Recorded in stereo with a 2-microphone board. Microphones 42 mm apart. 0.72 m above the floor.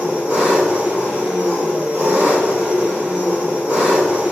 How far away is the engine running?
About 1.4 m.